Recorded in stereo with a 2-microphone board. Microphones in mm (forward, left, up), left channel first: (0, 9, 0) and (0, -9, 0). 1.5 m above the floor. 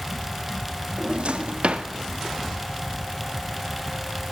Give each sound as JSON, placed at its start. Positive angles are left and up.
{"t": 1.0, "sound": "a drawer", "side_deg": -65, "distance_m": 1.6}